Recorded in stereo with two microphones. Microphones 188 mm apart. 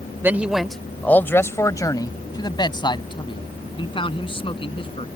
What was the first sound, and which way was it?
A man speaking, 10° right (ahead or behind).